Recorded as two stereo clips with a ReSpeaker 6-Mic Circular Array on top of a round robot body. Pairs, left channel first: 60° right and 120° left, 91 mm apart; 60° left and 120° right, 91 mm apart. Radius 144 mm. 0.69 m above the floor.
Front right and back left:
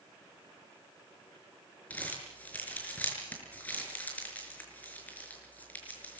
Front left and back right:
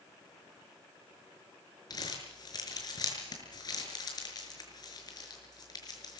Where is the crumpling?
15° left, 6 m.